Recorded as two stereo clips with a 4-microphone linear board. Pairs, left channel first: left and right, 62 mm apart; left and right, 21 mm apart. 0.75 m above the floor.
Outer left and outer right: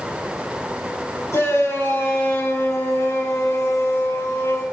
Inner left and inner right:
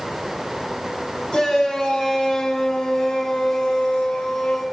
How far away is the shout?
About 4.5 m.